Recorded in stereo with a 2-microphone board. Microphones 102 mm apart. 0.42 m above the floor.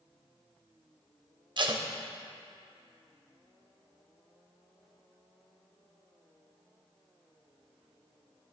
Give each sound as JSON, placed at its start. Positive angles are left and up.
{"t": 1.6, "sound": "tape being pulled", "side_deg": -50, "distance_m": 0.5}